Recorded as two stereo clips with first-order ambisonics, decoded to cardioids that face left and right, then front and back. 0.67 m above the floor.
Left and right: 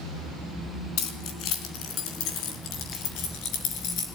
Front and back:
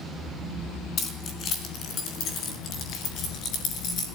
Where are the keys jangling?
55° left, 4.5 m; by 4.1 s 50° left, 6 m.